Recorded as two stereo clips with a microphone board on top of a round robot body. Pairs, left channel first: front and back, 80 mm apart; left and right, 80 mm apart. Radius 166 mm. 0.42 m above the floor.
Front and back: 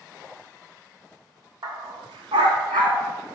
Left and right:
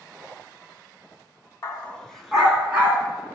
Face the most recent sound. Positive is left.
turn(degrees=-155)